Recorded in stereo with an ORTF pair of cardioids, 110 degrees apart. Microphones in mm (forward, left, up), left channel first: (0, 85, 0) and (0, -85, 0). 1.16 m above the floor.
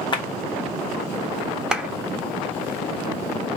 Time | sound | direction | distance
0.1 | a clap | 30° left | 1.2 m
1.7 | a clap | 5° right | 1.0 m